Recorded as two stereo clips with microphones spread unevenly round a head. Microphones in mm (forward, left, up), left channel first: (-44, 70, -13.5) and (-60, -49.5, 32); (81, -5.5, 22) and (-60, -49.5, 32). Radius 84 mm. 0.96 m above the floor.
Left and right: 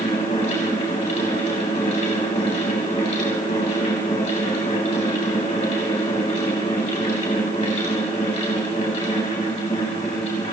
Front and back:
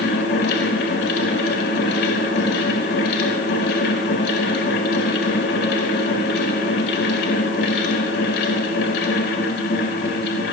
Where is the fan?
25° left, 4.5 m.